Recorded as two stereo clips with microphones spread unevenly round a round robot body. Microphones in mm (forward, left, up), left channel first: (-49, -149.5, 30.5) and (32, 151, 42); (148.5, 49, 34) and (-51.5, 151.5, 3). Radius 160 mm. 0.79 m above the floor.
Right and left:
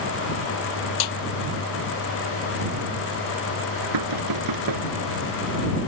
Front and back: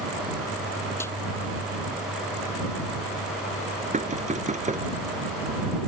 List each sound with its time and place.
1.0 s a snare drum: 110° right
3.9 s knocking: 95° left